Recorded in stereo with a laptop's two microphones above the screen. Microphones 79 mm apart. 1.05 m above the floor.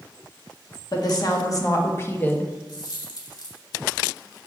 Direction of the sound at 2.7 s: 60° left (ahead or behind).